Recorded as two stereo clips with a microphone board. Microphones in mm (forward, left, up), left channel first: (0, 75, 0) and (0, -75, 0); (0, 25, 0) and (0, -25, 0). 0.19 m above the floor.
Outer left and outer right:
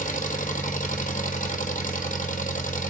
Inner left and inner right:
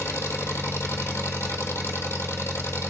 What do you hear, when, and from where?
0.0 s an engine running: 60° left (ahead or behind), 1.4 m